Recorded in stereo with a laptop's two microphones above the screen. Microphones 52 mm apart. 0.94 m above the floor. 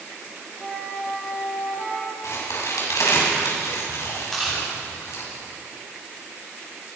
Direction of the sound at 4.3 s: Centre (ahead or behind).